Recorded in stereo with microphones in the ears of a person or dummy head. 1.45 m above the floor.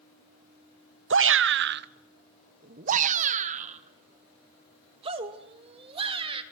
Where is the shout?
60° right (ahead or behind), 0.7 m; by 6.4 s 30° right (ahead or behind), 3 m.